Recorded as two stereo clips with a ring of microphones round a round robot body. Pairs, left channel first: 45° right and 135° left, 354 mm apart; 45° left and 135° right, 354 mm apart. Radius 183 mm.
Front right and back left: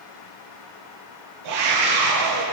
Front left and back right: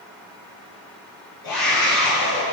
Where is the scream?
85° left, 7 m.